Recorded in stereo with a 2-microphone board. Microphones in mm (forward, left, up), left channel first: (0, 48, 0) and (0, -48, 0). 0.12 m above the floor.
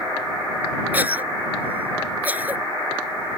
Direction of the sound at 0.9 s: 20° right (ahead or behind).